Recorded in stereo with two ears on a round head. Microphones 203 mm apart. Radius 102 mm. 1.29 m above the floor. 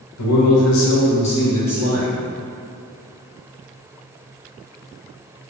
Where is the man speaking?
75° left (ahead or behind), 1.0 m; by 2.1 s centre (ahead or behind), 1.5 m.